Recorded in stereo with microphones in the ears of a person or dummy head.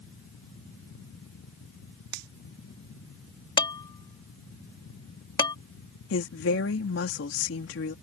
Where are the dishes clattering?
30° left (ahead or behind).